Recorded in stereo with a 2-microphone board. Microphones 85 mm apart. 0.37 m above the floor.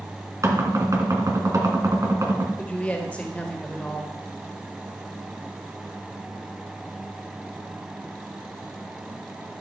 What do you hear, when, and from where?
0.4 s knocking: 40° right (ahead or behind), 2 m
2.6 s a woman speaking: 15° left (ahead or behind), 1.6 m